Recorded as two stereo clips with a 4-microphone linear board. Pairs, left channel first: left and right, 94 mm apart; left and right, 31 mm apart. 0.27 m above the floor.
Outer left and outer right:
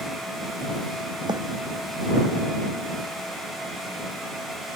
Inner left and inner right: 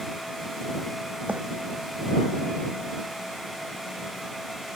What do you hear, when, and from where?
1.3 s a bird: 50° right (ahead or behind)